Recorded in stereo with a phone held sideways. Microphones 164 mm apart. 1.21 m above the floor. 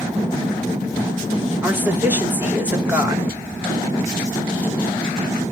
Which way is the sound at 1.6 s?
10° right (ahead or behind).